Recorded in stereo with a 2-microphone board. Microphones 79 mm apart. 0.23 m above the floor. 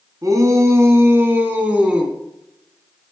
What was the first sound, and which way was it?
A shout, 45° right (ahead or behind).